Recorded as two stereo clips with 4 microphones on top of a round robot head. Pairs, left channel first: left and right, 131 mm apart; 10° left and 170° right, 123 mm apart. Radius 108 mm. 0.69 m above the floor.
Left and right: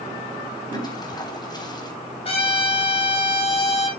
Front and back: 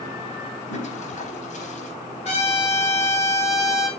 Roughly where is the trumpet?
Ahead left.